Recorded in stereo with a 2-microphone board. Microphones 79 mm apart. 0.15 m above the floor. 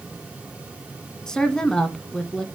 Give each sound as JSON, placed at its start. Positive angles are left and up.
{"t": 1.3, "sound": "a woman speaking", "side_deg": 5, "distance_m": 1.1}